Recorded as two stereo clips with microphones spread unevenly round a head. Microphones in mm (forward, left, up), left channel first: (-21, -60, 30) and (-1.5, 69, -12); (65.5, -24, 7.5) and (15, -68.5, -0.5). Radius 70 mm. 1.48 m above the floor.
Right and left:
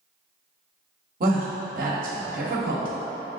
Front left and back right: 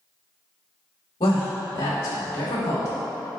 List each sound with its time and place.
1.2 s a woman speaking: 70° left, 1.1 m